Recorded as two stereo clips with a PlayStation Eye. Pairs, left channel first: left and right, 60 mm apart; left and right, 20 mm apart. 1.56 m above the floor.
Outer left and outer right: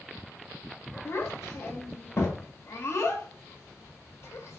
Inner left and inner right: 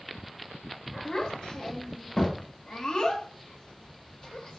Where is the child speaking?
50° left (ahead or behind), 0.8 m.